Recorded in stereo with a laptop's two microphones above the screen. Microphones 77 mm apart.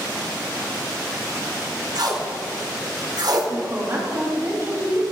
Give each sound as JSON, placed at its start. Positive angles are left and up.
{"t": 1.9, "sound": "tape being pulled", "side_deg": -55, "distance_m": 1.0}
{"t": 3.5, "sound": "a woman speaking", "side_deg": -35, "distance_m": 1.7}